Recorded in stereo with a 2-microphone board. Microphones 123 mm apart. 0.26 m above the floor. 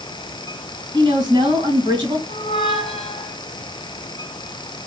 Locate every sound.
0.9 s a woman speaking: 40° right (ahead or behind), 2 m
2.3 s a squeak: 50° left (ahead or behind), 1.2 m